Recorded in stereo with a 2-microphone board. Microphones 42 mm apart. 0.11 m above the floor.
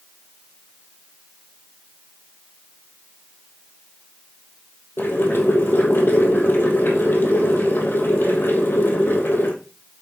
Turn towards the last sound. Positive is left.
turn(degrees=60)  # may be behind; listen again after turning